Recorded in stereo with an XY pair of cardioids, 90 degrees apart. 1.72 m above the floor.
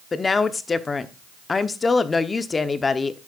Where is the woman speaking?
35° left, 1.0 m.